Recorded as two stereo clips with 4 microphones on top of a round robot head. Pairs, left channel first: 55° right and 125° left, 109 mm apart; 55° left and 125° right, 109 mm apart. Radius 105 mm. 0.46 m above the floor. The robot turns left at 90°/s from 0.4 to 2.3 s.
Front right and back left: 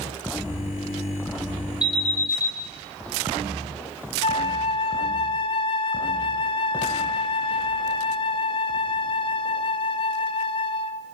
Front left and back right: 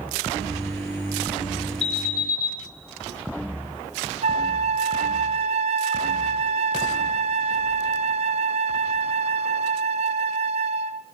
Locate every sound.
1.8 s an alarm: 45° left, 4 m; by 2.5 s straight ahead, 4 m
4.2 s a flute: 100° right, 0.6 m